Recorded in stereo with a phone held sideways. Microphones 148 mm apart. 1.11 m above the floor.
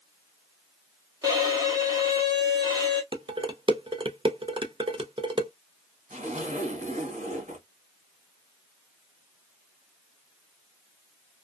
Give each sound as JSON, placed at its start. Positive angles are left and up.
{"t": 1.2, "sound": "a violin", "side_deg": -25, "distance_m": 1.0}
{"t": 3.1, "sound": "dishes clattering", "side_deg": -35, "distance_m": 0.6}
{"t": 6.1, "sound": "a zipper", "side_deg": -60, "distance_m": 1.6}